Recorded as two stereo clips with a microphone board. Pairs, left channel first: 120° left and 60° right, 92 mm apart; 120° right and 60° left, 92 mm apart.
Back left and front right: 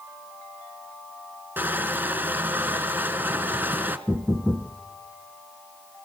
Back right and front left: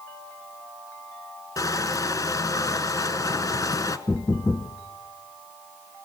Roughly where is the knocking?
Right.